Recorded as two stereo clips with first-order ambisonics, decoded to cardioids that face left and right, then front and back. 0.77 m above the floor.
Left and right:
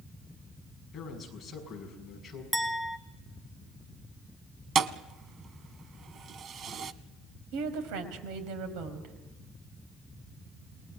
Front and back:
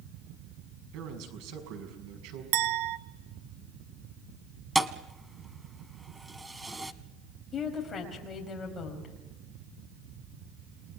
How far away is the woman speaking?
About 4.5 m.